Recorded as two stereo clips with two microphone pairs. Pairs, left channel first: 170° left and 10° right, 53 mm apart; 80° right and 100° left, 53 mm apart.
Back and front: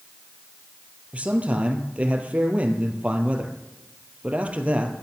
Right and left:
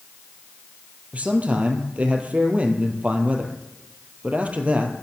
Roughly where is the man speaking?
Ahead left.